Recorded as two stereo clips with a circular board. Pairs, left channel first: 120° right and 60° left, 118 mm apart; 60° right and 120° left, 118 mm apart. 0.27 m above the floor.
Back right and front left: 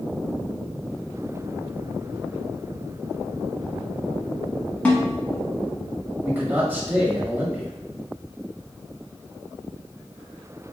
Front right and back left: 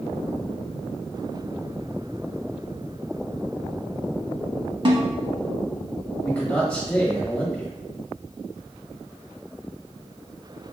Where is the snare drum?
160° left, 0.9 m.